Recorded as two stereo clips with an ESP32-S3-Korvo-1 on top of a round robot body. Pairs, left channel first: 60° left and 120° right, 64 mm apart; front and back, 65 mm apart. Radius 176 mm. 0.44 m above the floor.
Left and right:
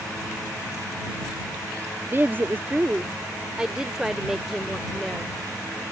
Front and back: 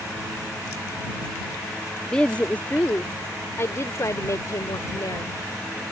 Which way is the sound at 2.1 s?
80° right.